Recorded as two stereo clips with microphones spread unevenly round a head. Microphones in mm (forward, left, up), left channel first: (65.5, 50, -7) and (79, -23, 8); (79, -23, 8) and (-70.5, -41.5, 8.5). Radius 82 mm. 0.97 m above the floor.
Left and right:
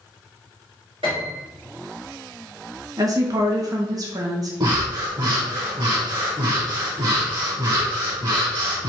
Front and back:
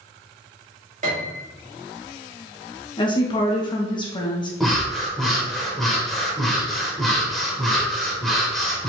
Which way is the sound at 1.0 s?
130° right.